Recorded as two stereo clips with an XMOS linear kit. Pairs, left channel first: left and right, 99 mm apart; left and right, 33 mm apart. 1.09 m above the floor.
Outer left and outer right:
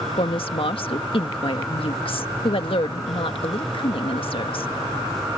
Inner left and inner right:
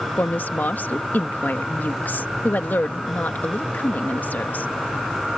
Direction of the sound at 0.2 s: 65° left (ahead or behind).